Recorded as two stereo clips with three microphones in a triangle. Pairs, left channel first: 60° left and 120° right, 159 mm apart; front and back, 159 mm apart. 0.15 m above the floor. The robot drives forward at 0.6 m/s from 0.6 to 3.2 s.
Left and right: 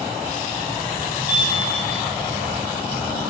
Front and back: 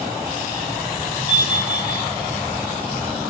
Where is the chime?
150° right, 1.1 m; by 2.0 s 160° right, 1.5 m.